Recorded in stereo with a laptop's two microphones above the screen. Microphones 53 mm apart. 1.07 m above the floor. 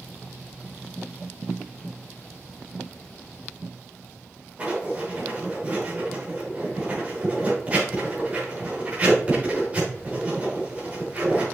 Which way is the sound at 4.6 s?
30° right (ahead or behind).